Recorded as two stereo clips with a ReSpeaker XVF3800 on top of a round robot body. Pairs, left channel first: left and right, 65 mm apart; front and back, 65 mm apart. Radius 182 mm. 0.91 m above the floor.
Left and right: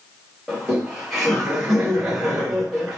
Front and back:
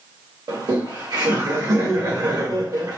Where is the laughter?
Straight behind, 1.6 m.